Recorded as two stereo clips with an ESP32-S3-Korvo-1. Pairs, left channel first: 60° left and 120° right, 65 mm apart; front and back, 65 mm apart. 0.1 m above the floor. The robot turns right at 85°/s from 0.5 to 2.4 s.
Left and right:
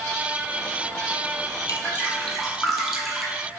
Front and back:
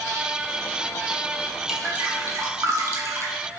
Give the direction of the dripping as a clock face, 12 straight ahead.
9 o'clock.